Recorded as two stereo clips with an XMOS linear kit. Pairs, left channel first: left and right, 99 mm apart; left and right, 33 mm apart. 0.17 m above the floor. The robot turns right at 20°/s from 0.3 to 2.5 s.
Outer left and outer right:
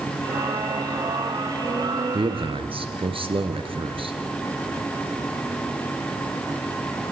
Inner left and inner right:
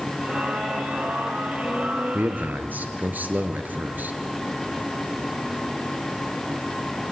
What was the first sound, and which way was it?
A man speaking, 65° right (ahead or behind).